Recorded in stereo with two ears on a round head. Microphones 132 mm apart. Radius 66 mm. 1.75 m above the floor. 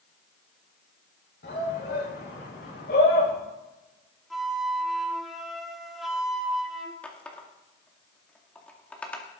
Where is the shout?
75° left (ahead or behind), 6.5 m; by 3.3 s 70° left (ahead or behind), 8 m.